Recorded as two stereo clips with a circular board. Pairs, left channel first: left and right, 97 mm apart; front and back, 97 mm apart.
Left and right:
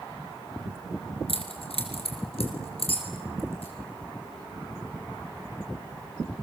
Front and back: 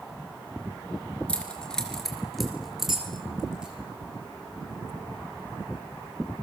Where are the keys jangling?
80° left, 3.5 m; by 3.7 s 100° left, 5.5 m.